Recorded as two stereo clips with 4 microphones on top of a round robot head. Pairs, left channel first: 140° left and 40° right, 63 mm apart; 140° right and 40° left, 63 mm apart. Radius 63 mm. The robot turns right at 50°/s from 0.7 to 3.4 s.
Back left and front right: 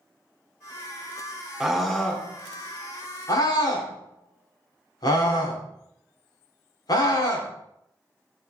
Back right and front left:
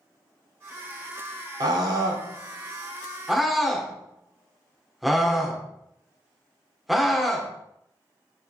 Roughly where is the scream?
Ahead left.